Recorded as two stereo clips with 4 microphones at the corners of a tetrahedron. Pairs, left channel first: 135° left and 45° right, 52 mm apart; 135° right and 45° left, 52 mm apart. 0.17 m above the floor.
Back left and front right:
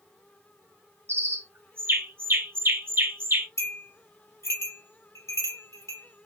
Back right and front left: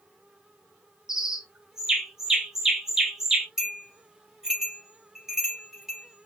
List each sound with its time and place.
1.1 s a bird: 30° right, 0.9 m
3.6 s a bell: 125° left, 3 m